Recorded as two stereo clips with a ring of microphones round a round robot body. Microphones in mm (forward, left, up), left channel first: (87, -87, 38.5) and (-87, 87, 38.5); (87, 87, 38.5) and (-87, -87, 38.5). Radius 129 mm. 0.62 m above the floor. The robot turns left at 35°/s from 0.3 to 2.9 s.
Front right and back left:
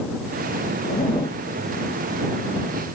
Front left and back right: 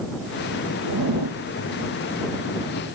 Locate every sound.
0.8 s a zipper: 110° right; by 1.4 s 130° right